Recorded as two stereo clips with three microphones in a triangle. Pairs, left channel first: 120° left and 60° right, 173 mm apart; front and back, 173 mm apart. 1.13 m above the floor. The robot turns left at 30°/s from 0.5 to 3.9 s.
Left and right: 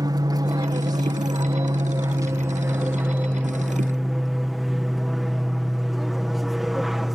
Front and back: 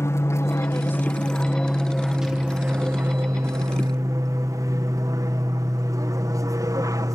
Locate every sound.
0.0 s an aircraft: 45° right; by 7.2 s 150° right